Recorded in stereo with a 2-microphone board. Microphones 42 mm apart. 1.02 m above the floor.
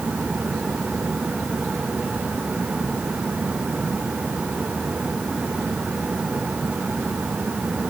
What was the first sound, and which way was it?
Only background noise.